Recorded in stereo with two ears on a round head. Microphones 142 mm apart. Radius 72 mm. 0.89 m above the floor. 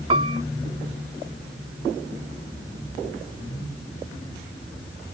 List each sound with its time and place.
0.1 s a piano: 35° right (ahead or behind)